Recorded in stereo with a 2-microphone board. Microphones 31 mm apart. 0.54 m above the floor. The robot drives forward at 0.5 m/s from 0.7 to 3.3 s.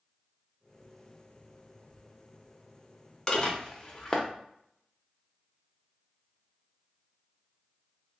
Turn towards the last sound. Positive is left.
turn(degrees=25)  # may be behind; listen again after turning